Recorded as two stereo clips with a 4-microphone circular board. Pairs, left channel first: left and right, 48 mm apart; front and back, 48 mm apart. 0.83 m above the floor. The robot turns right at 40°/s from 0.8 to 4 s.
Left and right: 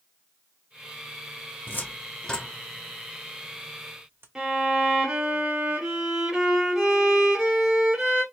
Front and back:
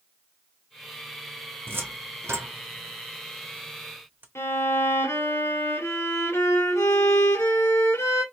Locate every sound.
1.7 s a cupboard door: 140° left, 0.7 m; by 4.2 s 130° right, 0.7 m
4.3 s a violin: 10° right, 1.3 m